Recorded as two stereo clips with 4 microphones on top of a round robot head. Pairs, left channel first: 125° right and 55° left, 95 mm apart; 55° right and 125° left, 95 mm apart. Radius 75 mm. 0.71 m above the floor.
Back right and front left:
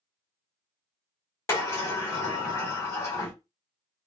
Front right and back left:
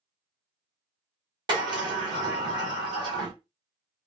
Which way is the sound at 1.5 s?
170° left.